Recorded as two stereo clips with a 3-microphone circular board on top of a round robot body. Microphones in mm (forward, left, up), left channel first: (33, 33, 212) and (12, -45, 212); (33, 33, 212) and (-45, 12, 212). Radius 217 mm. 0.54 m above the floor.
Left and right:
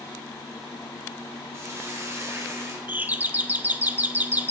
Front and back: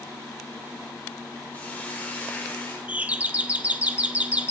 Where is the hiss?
55° right, 3 m.